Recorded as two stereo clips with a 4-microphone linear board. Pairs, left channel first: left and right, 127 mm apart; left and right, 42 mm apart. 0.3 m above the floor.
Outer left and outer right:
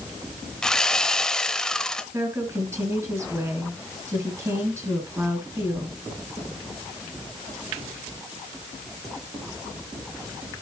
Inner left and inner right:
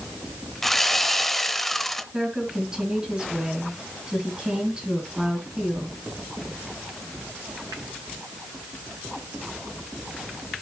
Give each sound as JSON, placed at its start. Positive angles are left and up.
{"t": 0.6, "sound": "sawing", "side_deg": 5, "distance_m": 0.6}
{"t": 2.1, "sound": "a woman speaking", "side_deg": -20, "distance_m": 3.0}